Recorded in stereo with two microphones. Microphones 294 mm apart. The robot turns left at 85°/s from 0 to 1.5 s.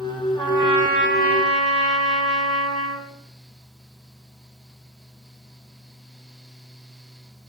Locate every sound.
0.4 s a trumpet: 5° left, 1.8 m; by 3.1 s 90° right, 1.8 m